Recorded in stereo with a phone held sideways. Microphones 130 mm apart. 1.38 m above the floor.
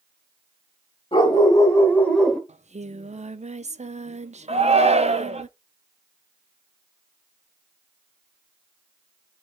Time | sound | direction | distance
1.1 | a dog barking | 40° left (ahead or behind) | 2.5 m
2.5 | singing | 60° right (ahead or behind) | 0.5 m
4.5 | a shout | 55° right (ahead or behind) | 1.0 m